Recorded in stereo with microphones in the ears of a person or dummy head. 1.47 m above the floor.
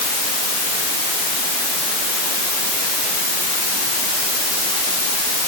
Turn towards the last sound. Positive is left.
No sound to turn to.